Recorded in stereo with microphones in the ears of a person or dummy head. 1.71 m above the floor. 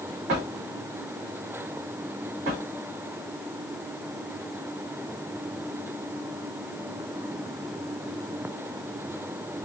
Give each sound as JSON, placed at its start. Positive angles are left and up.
{"t": 0.3, "sound": "a drawer", "side_deg": -45, "distance_m": 1.5}